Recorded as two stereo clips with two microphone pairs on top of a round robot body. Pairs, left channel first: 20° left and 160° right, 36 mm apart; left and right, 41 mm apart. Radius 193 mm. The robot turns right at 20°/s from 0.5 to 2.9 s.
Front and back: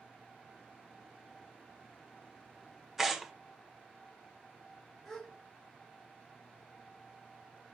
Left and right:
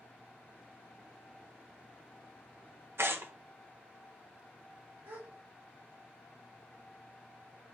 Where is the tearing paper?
85° right, 1.2 m.